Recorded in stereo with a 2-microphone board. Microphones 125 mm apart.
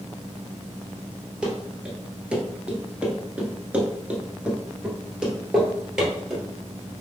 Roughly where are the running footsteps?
Centre.